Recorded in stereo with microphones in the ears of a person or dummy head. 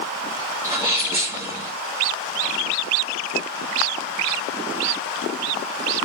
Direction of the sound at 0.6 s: 15° right (ahead or behind).